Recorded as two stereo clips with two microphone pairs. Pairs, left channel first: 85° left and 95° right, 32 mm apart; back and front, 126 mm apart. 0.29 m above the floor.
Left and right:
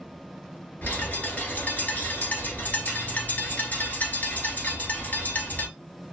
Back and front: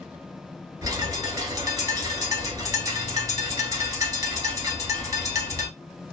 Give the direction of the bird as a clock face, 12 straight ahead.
10 o'clock.